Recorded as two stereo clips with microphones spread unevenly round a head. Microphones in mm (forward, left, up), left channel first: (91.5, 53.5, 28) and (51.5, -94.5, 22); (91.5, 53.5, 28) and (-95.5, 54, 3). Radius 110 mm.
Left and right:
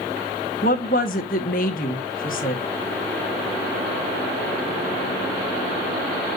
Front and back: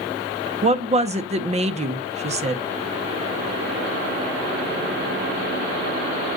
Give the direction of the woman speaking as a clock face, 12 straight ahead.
8 o'clock.